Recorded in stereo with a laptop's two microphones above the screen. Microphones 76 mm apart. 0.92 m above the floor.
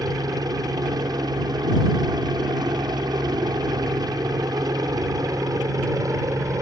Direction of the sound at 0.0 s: 55° right (ahead or behind).